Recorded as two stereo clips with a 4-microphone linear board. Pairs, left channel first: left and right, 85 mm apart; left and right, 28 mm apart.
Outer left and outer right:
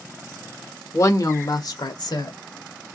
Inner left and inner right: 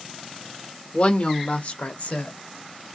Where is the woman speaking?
40° left (ahead or behind), 1.1 m; by 2.3 s 55° left (ahead or behind), 1.7 m.